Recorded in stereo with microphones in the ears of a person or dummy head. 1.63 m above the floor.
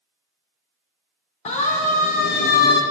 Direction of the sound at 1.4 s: 40° left (ahead or behind).